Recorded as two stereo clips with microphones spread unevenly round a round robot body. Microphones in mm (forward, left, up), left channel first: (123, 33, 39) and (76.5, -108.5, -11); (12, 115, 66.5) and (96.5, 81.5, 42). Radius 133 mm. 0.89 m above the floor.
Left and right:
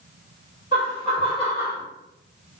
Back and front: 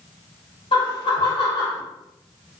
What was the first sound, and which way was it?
Laughter, 130° left.